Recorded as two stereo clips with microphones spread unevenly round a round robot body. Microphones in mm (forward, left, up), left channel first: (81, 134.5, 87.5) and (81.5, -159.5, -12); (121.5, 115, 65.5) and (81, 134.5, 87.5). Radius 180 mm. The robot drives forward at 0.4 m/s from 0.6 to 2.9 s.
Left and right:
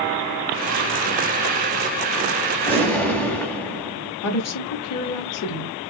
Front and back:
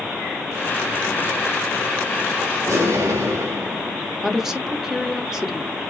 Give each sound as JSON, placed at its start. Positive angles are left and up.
{"t": 2.7, "sound": "an explosion", "azimuth_deg": -175, "distance_m": 1.2}
{"t": 4.2, "sound": "a woman speaking", "azimuth_deg": 50, "distance_m": 1.9}